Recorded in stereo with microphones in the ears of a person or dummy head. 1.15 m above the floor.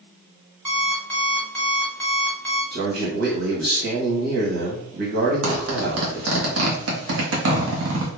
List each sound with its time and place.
0.7 s an alarm clock: 5° left (ahead or behind), 1.2 m
2.7 s a man speaking: 60° right (ahead or behind), 1.1 m
5.4 s a zipper: 90° right, 0.8 m